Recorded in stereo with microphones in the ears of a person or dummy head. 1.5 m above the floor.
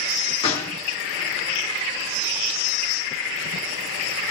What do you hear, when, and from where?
0.4 s a gunshot: 30° left (ahead or behind), 1.5 m